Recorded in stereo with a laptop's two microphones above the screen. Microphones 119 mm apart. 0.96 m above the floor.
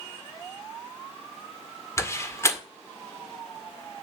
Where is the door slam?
25° left (ahead or behind), 1.7 m.